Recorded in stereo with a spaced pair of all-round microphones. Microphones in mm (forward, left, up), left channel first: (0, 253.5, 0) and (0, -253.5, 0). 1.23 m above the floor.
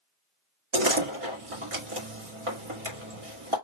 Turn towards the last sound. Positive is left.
turn(degrees=-75)  # may be behind; listen again after turning